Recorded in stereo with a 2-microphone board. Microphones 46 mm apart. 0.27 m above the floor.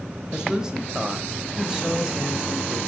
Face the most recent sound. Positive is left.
turn(degrees=-15)  # may be behind; listen again after turning